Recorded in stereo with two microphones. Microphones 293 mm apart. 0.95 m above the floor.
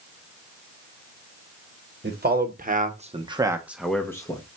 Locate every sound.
2.0 s a man speaking: 35° right (ahead or behind), 1.1 m; by 4.4 s 15° left (ahead or behind), 0.8 m